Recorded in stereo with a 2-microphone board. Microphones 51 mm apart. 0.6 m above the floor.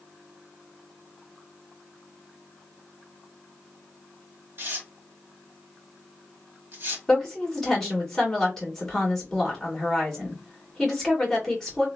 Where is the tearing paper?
50° right (ahead or behind), 1.2 m.